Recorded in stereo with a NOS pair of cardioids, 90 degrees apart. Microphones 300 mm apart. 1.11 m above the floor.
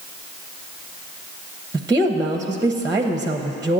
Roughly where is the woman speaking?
Ahead.